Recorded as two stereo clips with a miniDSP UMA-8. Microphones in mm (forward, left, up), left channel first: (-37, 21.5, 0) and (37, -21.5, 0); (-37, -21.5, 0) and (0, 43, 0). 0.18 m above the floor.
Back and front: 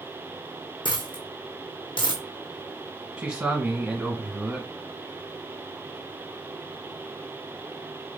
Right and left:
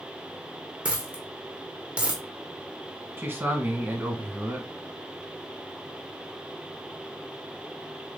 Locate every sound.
0.8 s a dropped coin: 135° left, 1.1 m
3.2 s a man speaking: 35° left, 1.5 m